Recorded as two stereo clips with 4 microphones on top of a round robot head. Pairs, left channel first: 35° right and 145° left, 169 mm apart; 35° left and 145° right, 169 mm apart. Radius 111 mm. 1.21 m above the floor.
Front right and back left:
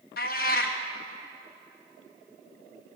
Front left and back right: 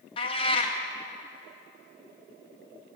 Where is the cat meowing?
15° right, 0.6 m.